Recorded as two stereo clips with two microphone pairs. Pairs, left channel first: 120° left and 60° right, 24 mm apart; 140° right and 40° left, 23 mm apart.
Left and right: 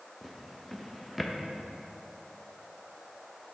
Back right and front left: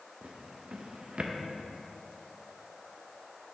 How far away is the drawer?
About 0.5 m.